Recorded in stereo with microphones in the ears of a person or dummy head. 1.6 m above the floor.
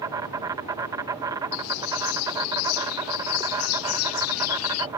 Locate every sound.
0.0 s an insect: 20° right (ahead or behind)
1.5 s a bird: 80° left